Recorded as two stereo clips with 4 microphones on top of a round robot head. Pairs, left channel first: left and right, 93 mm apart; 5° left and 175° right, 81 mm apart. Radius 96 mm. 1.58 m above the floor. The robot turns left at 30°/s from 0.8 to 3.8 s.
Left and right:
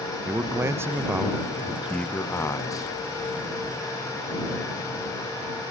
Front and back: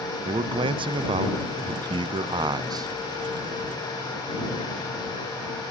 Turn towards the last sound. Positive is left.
turn(degrees=115)